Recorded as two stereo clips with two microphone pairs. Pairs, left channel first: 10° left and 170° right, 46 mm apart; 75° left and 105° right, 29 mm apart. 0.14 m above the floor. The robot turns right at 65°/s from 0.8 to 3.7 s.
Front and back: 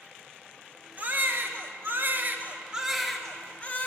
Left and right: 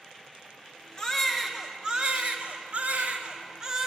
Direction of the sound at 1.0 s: 145° left.